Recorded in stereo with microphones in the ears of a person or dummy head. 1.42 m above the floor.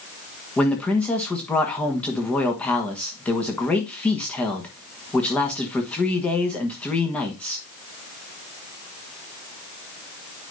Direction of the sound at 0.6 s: 10° left (ahead or behind).